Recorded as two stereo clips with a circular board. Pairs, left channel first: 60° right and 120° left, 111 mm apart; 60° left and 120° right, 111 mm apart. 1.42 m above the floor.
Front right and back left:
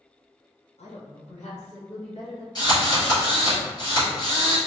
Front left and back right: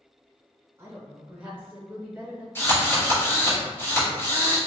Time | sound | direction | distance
0.8 | a woman speaking | 50° right | 1.1 m
2.5 | a drill | 10° right | 1.9 m